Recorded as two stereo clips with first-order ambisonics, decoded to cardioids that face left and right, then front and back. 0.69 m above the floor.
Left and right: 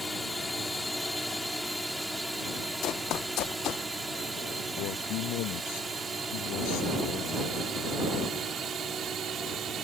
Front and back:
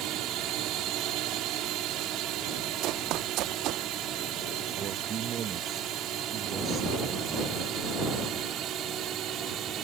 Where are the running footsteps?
140° left; by 3.9 s 135° left.